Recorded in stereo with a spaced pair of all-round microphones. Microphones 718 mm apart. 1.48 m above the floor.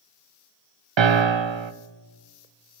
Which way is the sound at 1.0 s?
40° right (ahead or behind).